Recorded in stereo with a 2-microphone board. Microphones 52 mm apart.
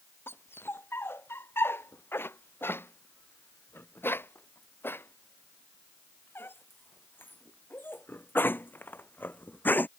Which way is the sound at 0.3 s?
50° left (ahead or behind).